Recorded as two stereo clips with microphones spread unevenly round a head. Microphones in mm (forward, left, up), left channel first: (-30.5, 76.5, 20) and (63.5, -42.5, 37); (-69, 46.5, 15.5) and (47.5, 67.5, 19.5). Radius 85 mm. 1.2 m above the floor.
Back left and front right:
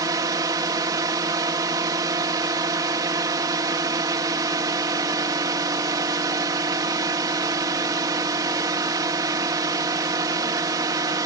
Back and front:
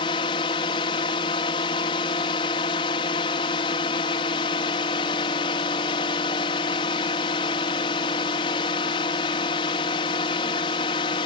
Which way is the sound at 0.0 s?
120° right.